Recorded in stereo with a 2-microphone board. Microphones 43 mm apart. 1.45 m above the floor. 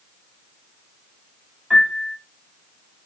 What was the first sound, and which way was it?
A piano, 15° right (ahead or behind).